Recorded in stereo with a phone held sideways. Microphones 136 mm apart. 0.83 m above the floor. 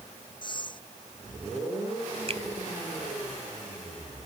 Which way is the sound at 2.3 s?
50° right (ahead or behind).